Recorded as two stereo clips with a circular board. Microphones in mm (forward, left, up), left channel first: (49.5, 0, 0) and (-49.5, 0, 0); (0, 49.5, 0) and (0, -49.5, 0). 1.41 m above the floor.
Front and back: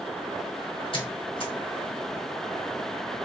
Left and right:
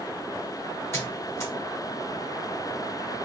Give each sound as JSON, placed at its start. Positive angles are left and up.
{"t": 0.9, "sound": "a squeak", "azimuth_deg": 25, "distance_m": 1.1}